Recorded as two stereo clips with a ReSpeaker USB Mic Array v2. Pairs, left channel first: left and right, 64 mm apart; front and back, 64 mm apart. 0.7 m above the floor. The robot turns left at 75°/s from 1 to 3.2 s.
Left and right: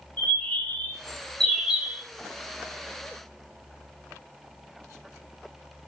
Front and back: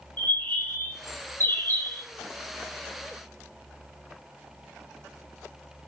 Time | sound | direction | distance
0.2 | a bird | 40° left | 1.1 m